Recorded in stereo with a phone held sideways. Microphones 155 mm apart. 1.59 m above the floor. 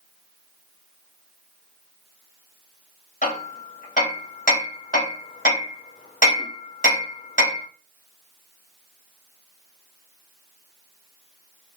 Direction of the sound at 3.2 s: 60° left (ahead or behind).